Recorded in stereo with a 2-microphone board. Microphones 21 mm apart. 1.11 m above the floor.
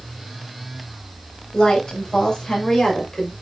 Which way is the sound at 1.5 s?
35° left (ahead or behind).